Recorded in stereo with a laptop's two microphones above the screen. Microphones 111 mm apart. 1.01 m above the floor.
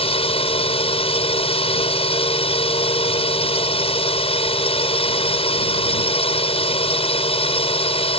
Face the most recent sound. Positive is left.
turn(degrees=60)  # may be behind; listen again after turning